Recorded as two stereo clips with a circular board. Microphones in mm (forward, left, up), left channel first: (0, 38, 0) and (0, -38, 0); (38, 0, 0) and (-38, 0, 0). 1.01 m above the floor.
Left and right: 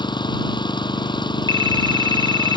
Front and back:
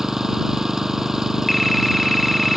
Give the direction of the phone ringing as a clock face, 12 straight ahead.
3 o'clock.